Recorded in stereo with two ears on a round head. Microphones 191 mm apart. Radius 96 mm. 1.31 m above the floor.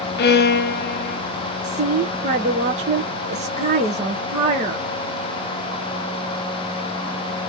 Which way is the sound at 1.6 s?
30° right (ahead or behind).